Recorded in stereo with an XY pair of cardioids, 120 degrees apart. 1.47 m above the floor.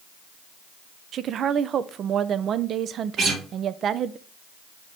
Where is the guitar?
60° right, 2.5 m.